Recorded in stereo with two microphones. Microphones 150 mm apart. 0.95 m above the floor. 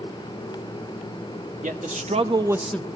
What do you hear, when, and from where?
1.6 s a man speaking: 60° right (ahead or behind), 1.6 m; by 2.9 s 20° left (ahead or behind), 0.7 m